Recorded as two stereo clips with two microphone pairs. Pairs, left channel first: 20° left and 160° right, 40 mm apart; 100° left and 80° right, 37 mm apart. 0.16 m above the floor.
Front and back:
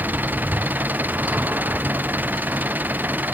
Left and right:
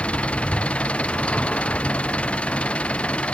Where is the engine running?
160° left.